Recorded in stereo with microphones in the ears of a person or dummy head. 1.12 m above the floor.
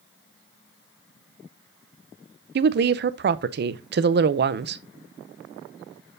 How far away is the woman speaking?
About 0.5 m.